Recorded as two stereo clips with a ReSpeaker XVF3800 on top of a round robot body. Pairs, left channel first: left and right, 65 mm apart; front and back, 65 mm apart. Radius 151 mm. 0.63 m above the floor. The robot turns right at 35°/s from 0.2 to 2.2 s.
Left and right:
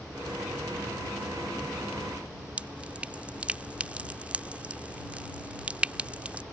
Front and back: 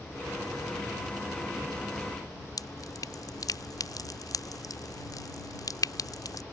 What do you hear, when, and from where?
2.6 s dripping: 20° right